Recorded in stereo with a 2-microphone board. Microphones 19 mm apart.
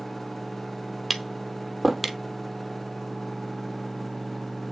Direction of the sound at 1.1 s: 5° right (ahead or behind).